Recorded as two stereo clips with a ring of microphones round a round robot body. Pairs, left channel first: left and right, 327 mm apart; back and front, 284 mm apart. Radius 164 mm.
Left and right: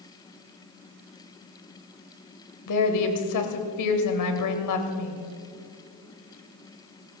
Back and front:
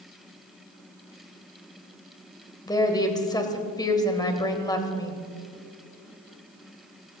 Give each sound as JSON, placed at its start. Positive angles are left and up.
{"t": 2.7, "sound": "a woman speaking", "azimuth_deg": 105, "distance_m": 2.0}